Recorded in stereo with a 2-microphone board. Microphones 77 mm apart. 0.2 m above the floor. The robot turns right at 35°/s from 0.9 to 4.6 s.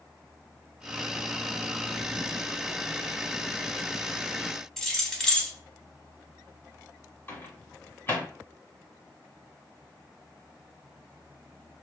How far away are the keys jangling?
About 0.7 m.